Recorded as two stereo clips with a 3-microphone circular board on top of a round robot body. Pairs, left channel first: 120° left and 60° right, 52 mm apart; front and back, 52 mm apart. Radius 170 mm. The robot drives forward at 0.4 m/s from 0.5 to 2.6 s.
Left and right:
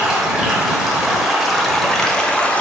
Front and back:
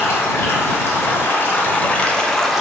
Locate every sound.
0.0 s running water: 15° left, 1.0 m; by 2.6 s 95° left, 0.7 m